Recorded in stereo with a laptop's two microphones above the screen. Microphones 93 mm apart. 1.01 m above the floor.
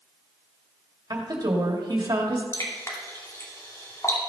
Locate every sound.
1.1 s a woman speaking: 50° right (ahead or behind), 2 m
2.5 s dripping: 35° left (ahead or behind), 2.5 m